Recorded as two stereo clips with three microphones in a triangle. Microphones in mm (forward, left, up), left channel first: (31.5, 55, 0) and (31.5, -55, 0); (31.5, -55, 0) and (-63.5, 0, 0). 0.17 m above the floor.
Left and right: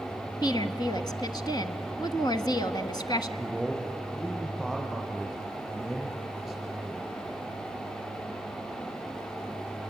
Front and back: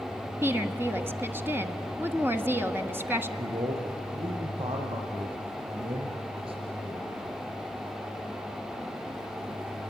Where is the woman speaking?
95° left, 1.3 m.